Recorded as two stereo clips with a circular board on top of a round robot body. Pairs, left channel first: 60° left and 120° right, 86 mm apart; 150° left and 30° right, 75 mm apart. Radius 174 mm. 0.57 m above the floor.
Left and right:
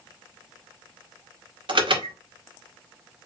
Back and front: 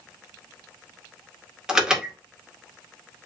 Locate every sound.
1.7 s an alarm: 110° right, 1.9 m